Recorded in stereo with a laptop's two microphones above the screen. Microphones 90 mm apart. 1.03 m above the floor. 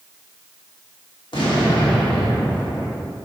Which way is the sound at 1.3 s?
70° left (ahead or behind).